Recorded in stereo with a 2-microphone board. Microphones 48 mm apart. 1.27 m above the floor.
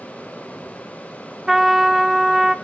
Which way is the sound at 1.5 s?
5° right (ahead or behind).